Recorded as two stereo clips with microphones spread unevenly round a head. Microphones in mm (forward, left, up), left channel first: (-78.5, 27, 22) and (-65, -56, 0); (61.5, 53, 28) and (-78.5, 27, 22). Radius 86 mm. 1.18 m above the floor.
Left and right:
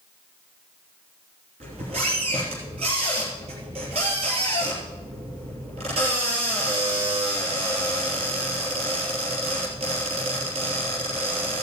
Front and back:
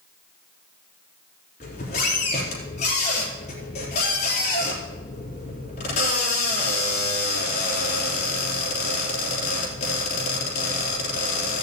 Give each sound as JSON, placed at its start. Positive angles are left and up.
{"t": 1.6, "sound": "a squeak", "azimuth_deg": -45, "distance_m": 3.0}